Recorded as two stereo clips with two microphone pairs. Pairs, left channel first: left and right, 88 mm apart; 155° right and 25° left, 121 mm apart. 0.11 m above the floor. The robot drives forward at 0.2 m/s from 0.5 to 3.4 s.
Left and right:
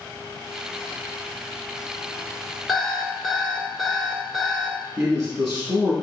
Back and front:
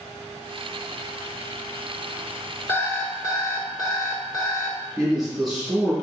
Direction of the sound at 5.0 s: 60° right.